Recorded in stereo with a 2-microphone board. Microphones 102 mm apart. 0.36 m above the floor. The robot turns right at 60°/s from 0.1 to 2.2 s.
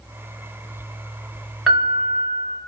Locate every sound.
1.7 s a piano: 5° right, 0.8 m; by 2.6 s 25° left, 0.8 m